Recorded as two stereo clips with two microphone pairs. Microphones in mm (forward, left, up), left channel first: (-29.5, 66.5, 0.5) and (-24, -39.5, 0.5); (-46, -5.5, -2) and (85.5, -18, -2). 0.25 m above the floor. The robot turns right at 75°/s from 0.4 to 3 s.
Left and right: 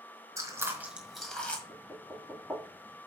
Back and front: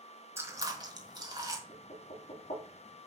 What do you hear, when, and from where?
0.4 s chewing: 55° right, 1.6 m; by 1.6 s 35° left, 1.6 m
1.7 s knocking: 125° left, 4.5 m; by 2.6 s 160° right, 4.5 m